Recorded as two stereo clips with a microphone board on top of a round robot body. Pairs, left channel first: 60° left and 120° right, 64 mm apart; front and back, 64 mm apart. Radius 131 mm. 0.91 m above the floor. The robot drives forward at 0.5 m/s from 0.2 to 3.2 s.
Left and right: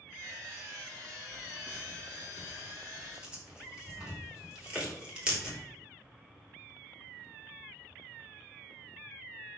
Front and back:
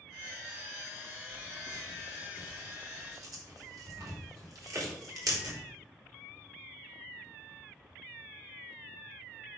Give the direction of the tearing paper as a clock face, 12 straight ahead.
7 o'clock.